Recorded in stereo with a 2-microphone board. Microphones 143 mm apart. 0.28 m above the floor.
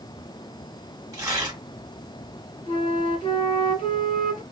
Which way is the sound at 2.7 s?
45° left (ahead or behind).